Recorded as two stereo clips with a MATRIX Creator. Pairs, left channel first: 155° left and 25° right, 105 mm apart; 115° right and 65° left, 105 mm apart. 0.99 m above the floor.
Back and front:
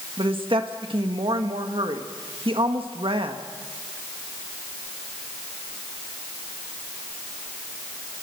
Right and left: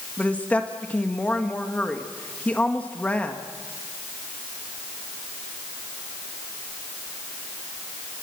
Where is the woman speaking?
40° right, 1.6 m.